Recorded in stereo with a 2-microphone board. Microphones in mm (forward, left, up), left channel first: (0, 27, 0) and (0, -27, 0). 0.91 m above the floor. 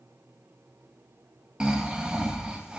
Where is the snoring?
15° right (ahead or behind), 0.7 m.